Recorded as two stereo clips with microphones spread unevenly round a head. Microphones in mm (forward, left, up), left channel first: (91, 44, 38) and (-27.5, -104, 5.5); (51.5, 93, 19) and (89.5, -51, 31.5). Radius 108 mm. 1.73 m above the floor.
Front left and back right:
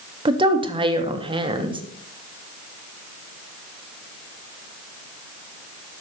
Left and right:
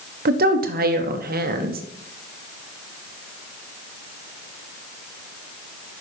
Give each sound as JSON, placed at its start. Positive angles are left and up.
{"t": 0.2, "sound": "a woman speaking", "azimuth_deg": -60, "distance_m": 1.0}